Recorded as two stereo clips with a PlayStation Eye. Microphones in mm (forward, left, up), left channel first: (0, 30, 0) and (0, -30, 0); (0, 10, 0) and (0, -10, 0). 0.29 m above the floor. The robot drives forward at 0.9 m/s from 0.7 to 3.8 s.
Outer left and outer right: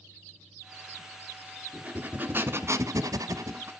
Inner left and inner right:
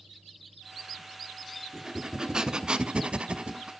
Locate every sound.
1.7 s breathing: 25° right (ahead or behind), 1.4 m; by 3.7 s 45° right (ahead or behind), 0.7 m